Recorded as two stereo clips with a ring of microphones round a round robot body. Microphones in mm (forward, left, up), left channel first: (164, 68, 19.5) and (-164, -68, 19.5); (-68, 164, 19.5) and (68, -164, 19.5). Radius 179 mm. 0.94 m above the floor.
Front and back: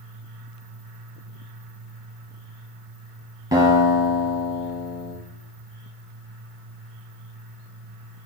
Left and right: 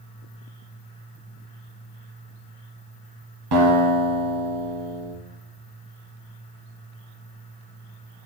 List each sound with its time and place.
3.5 s a guitar: 80° right, 1.4 m